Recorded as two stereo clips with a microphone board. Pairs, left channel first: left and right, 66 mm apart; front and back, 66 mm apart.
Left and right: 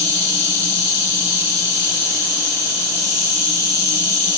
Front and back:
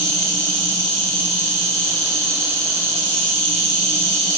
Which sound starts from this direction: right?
An insect, at 0.0 s.